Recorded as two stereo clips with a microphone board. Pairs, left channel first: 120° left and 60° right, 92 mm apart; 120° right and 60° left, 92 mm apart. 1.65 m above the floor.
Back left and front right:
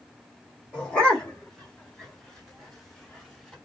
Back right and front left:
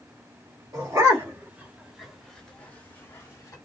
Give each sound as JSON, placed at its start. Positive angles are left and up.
{"t": 0.7, "sound": "a dog barking", "azimuth_deg": 45, "distance_m": 1.7}